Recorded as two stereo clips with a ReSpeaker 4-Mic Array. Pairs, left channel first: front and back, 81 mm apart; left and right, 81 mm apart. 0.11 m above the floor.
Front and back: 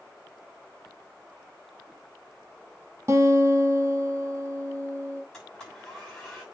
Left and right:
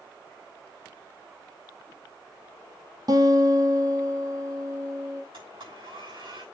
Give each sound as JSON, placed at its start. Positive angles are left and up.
{"t": 3.1, "sound": "a guitar", "azimuth_deg": -125, "distance_m": 2.0}
{"t": 5.3, "sound": "a blender", "azimuth_deg": -85, "distance_m": 6.5}